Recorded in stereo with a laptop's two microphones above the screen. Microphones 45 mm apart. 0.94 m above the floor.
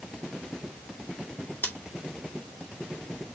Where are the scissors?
75° left (ahead or behind), 1.8 m.